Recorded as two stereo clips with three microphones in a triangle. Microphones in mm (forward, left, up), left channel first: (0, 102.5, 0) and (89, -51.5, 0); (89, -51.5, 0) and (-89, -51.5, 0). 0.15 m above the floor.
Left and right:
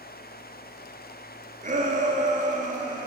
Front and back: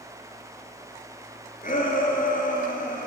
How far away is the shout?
About 2.5 m.